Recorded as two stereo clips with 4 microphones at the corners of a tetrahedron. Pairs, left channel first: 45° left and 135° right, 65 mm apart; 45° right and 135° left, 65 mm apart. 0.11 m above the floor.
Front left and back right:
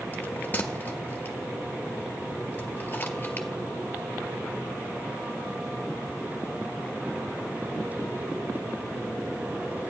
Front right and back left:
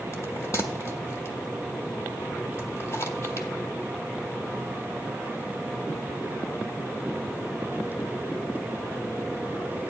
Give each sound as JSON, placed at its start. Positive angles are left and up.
{"t": 0.1, "sound": "a bell", "azimuth_deg": -15, "distance_m": 1.4}